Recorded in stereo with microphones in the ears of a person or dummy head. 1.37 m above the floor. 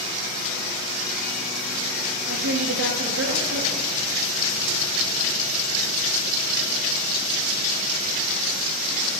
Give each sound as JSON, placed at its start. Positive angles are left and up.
{"t": 2.3, "sound": "a woman speaking", "side_deg": -85, "distance_m": 1.9}